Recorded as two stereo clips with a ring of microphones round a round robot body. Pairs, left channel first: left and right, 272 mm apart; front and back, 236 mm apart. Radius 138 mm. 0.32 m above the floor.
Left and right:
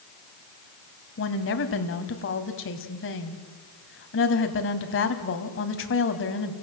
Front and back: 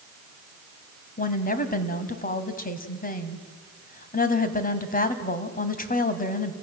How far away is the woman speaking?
About 1.9 m.